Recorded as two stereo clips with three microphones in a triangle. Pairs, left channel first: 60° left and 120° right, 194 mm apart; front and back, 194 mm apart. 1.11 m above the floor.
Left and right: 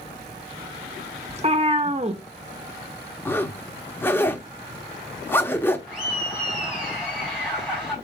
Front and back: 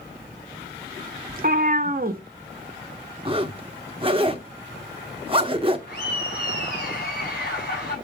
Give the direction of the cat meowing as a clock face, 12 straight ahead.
5 o'clock.